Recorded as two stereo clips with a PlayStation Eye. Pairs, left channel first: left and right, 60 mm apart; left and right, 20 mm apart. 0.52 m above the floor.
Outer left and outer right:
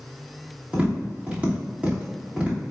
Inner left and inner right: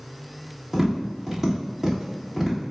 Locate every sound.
0.7 s tapping: 20° right (ahead or behind), 1.4 m